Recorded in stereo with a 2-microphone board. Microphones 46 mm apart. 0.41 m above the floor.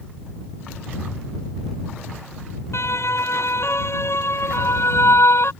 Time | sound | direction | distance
2.7 | a siren | 70° left (ahead or behind) | ?